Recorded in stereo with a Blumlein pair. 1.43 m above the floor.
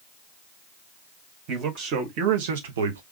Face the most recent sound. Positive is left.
turn(degrees=-65)